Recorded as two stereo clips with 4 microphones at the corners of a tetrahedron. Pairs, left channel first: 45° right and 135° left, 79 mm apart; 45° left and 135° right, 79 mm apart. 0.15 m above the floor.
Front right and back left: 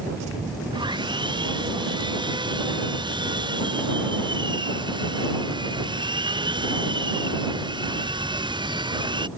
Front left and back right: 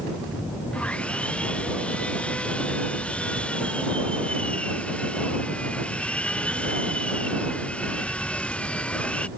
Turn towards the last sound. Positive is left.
turn(degrees=120)